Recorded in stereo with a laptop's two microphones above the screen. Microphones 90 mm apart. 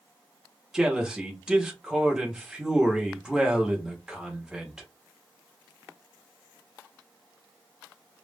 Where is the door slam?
I don't hear a door slam.